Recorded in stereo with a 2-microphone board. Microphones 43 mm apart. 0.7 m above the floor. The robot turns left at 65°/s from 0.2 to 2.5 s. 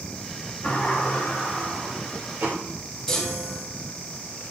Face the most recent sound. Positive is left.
turn(degrees=10)  # may be behind; listen again after turning